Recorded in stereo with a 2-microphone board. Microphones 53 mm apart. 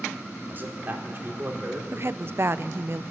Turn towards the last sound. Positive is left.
turn(degrees=-50)  # may be behind; listen again after turning